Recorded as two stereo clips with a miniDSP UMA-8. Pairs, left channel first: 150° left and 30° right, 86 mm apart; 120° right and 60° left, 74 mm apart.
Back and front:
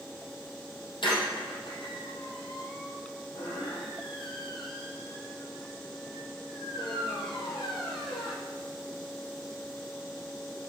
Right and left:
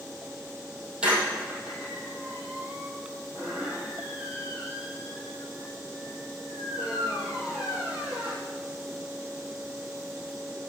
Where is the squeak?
135° left, 3.5 m.